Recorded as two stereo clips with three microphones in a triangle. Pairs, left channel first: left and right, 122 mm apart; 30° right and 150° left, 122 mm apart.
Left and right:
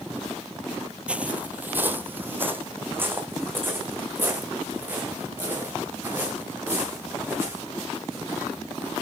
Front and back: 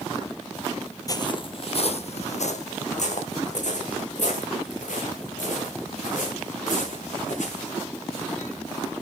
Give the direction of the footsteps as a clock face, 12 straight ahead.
1 o'clock.